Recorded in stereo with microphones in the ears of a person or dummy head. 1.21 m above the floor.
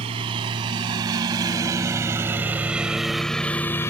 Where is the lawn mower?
35° right (ahead or behind); by 3.9 s 15° left (ahead or behind).